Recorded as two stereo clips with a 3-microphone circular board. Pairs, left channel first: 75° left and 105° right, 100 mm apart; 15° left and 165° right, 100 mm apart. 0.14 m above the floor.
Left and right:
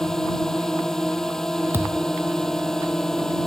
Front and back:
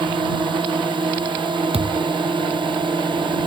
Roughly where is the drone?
Behind.